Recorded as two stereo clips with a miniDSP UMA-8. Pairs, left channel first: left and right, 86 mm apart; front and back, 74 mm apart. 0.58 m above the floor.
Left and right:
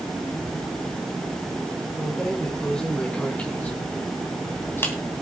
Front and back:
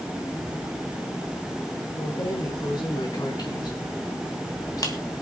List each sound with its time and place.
2.0 s keys jangling: 5° left, 4 m; by 5.0 s 30° left, 2.5 m